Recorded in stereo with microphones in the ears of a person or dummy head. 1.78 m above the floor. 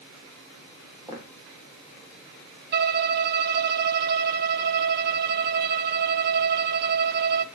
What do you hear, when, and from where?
1.1 s footsteps: 20° right (ahead or behind), 4.5 m
2.7 s a violin: 50° right (ahead or behind), 0.8 m